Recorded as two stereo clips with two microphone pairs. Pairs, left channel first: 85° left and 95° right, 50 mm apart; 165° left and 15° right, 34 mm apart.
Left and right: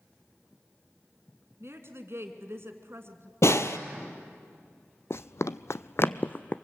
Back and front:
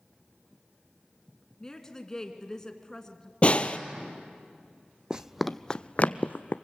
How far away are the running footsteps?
About 0.7 m.